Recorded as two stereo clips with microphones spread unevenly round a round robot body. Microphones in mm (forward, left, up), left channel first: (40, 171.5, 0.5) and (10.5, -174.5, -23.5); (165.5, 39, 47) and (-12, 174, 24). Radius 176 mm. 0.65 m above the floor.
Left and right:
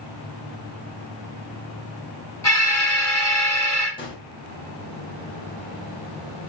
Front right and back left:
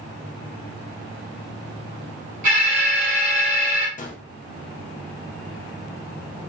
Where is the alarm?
170° left, 1.0 m.